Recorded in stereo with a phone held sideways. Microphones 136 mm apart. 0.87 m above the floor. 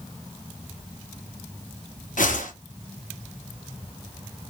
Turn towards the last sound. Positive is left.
turn(degrees=70)  # may be behind; listen again after turning